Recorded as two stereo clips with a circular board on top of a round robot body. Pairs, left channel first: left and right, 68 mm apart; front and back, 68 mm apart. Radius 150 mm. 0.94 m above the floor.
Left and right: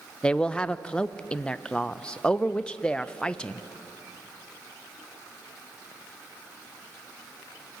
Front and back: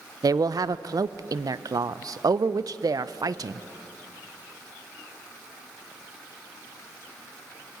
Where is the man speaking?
165° left, 0.5 m.